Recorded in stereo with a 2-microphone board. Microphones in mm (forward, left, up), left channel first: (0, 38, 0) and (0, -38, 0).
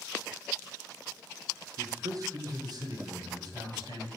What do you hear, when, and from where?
1.8 s a man speaking: 40° right (ahead or behind), 0.9 m; by 4.1 s 65° right (ahead or behind), 2.5 m